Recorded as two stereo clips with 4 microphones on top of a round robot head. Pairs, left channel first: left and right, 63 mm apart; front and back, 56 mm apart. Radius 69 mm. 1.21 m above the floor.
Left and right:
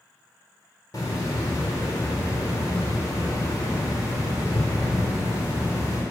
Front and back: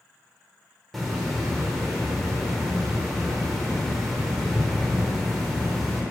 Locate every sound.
0.9 s a hiss: 90° left, 1.0 m